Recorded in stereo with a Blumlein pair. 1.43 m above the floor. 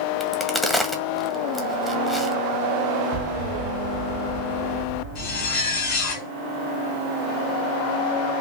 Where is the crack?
10° left, 1.7 m.